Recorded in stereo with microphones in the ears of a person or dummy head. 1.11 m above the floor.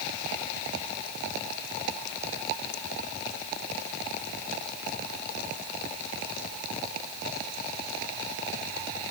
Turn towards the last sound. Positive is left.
No sound to turn to.